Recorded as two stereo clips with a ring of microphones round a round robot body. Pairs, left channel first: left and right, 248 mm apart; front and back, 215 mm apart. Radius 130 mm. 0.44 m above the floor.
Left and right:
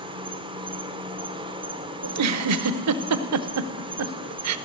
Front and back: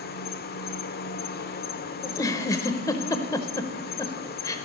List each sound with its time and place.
0.0 s an insect: 25° right, 0.9 m
2.0 s a giggle: 75° right, 0.7 m